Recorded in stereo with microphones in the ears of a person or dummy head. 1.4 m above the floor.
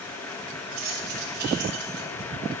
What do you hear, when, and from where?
0.7 s keys jangling: 45° right (ahead or behind), 6 m; by 2.1 s 60° right (ahead or behind), 6 m